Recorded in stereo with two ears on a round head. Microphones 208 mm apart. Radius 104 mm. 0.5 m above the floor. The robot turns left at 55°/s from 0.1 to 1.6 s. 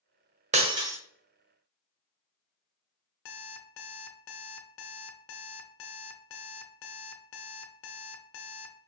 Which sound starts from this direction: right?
Breaking glass, at 0.5 s.